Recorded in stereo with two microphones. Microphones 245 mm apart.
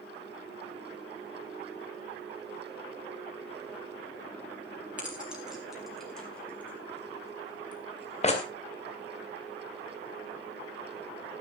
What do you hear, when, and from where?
5.0 s keys jangling: 5° right (ahead or behind), 5 m; by 8.4 s 30° left (ahead or behind), 2.5 m